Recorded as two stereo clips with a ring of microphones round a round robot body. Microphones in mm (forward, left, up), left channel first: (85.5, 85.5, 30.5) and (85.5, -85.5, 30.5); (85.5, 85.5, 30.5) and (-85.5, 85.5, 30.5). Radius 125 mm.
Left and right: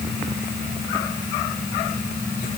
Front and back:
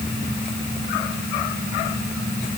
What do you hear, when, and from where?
Only background noise.